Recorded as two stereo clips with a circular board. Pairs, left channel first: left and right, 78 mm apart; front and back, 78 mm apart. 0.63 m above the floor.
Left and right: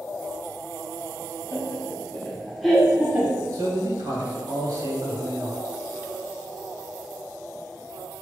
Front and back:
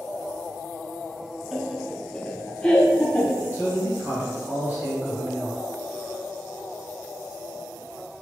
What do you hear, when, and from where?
1.5 s laughter: 100° left, 1.1 m; by 3.4 s 60° right, 1.0 m
3.5 s a man speaking: 120° right, 2.0 m